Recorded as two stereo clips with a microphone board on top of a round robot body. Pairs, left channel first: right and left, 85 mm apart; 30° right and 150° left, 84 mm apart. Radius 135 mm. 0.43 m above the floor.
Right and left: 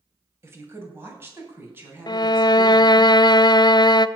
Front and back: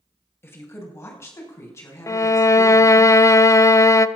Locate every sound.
0.4 s a woman speaking: 30° left, 3 m; by 3.1 s 25° left, 5.5 m
2.1 s a violin: 75° right, 0.5 m